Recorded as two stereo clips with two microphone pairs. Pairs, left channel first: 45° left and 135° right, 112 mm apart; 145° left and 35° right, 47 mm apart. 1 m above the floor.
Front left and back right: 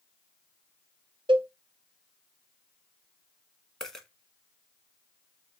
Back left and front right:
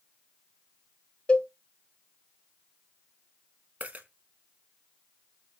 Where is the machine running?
No machine running in this recording.